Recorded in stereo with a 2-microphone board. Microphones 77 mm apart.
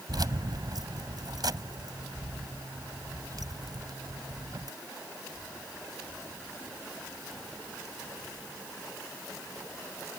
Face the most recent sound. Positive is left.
turn(degrees=-65)  # may be behind; listen again after turning